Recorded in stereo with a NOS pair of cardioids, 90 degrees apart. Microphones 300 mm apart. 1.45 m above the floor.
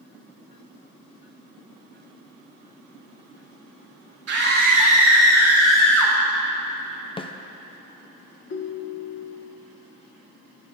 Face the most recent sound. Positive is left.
turn(degrees=45)